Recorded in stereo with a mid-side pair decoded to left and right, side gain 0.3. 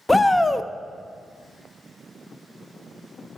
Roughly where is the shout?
Ahead.